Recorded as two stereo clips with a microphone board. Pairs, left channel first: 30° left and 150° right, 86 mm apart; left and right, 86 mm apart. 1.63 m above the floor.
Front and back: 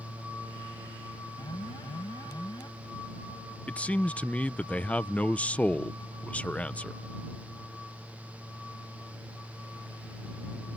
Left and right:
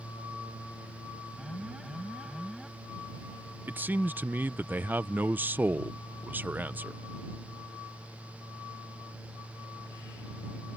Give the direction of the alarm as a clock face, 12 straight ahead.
12 o'clock.